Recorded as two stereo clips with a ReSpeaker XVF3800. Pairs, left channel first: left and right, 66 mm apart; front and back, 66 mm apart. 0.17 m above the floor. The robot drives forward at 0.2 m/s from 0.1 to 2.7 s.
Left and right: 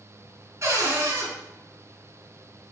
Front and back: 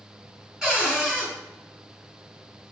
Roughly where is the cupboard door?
Right.